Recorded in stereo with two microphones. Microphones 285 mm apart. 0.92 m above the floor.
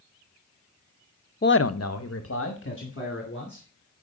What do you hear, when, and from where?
1.4 s a man speaking: 30° left (ahead or behind), 0.5 m; by 3.6 s 40° left (ahead or behind), 3 m